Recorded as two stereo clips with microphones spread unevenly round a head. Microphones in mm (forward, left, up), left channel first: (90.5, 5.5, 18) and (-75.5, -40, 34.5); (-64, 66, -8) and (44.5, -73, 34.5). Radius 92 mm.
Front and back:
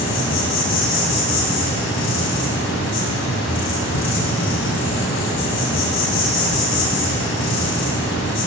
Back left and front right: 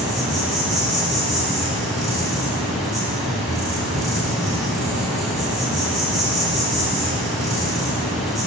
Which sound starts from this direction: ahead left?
An insect, at 0.0 s.